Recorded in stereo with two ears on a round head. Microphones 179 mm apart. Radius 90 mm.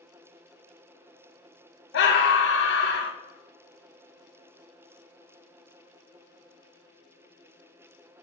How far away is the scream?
About 1.3 m.